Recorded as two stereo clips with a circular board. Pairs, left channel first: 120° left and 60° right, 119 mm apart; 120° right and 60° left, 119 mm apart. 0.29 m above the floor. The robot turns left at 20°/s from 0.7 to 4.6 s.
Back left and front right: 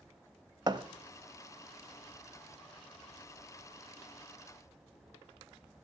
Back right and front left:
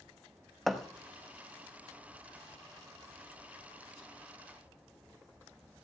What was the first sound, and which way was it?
A thud, 30° right.